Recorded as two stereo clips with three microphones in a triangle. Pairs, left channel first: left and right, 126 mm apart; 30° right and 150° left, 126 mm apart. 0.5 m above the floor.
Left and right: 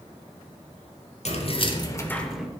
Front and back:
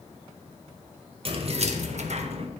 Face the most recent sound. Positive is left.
turn(degrees=-170)